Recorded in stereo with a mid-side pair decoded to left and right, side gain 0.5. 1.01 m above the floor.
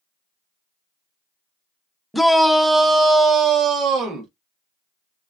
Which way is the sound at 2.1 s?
5° left.